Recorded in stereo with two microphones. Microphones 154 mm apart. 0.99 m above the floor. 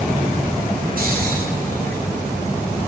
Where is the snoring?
70° right (ahead or behind), 9.5 m.